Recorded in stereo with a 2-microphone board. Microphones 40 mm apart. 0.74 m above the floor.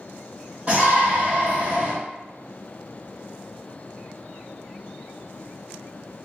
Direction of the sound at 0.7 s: 30° right (ahead or behind).